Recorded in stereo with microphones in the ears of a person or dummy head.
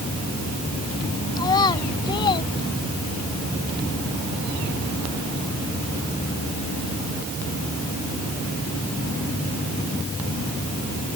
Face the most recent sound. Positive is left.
turn(degrees=30)  # may be behind; listen again after turning